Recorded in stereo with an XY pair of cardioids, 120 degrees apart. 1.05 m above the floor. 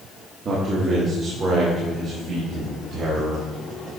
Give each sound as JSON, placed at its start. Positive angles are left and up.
{"t": 0.5, "sound": "a man speaking", "azimuth_deg": -45, "distance_m": 1.6}